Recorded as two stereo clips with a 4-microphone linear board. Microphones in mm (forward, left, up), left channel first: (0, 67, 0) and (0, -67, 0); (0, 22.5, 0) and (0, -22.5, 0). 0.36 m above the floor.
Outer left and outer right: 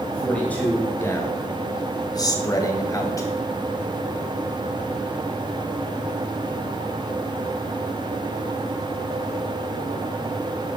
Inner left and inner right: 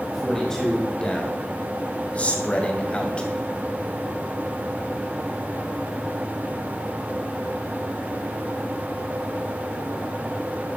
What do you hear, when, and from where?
0.1 s a man speaking: 10° left (ahead or behind), 1.9 m; by 3.3 s 25° left (ahead or behind), 2.5 m